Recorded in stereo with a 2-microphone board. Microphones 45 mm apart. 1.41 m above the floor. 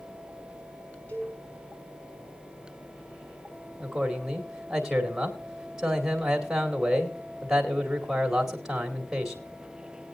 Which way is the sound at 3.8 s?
10° right (ahead or behind).